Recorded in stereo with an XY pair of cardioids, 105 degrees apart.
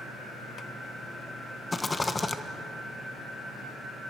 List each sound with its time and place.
1.7 s a rattle: 20° left, 1.4 m